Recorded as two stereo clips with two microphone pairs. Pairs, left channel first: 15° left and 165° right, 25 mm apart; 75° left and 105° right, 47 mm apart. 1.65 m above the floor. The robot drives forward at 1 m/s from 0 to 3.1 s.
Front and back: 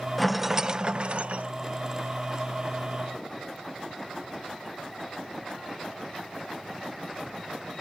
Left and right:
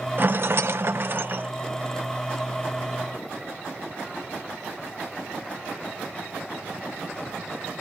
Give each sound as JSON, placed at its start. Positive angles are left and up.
{"t": 0.2, "sound": "a rattle", "azimuth_deg": -70}